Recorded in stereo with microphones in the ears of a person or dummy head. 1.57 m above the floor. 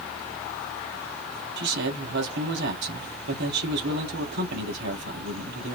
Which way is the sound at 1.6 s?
70° right (ahead or behind).